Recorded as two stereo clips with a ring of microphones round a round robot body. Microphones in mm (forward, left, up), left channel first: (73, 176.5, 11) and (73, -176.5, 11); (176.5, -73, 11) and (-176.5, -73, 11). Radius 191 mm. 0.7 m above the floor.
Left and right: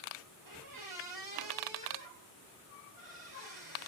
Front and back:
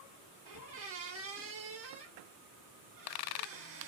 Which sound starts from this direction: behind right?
A squeak, at 0.5 s.